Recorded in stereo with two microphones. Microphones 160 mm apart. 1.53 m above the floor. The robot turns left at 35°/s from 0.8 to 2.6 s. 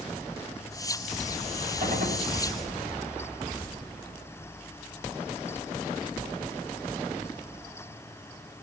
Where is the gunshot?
55° right (ahead or behind), 6 m; by 2.3 s 70° right (ahead or behind), 6 m.